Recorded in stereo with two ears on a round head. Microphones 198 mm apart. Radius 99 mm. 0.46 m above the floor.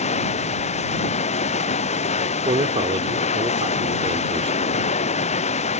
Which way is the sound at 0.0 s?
30° left (ahead or behind).